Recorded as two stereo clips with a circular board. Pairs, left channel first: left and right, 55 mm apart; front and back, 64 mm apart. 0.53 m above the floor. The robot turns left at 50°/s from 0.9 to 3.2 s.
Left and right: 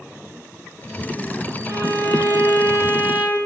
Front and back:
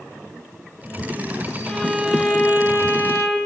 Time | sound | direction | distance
1.7 | a violin | 80° right | 9 m